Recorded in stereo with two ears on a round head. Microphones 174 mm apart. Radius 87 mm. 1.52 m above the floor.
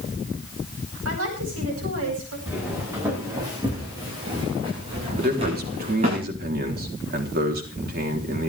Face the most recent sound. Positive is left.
turn(degrees=-50)  # may be behind; listen again after turning